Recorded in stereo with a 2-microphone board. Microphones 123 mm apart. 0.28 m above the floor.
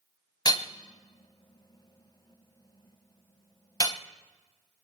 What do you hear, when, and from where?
0.5 s hammering: 30° left (ahead or behind), 0.7 m